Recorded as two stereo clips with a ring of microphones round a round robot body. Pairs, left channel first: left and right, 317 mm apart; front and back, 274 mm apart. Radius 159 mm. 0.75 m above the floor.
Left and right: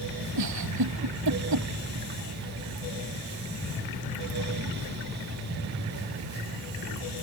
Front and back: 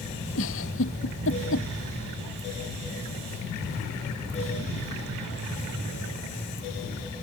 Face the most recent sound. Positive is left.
turn(degrees=-55)